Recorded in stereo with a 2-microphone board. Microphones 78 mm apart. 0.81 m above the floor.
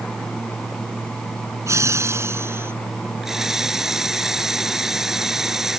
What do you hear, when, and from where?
1.7 s laughter: 40° right (ahead or behind); by 2.7 s 30° right (ahead or behind)
3.2 s a running tap: 5° right (ahead or behind)